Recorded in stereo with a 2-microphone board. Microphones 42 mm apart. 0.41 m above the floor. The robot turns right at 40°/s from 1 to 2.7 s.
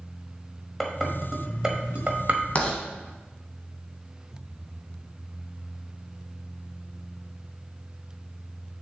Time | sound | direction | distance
0.8 | dishes clattering | 5° left (ahead or behind) | 1.1 m
2.5 | writing | 30° left (ahead or behind) | 1.4 m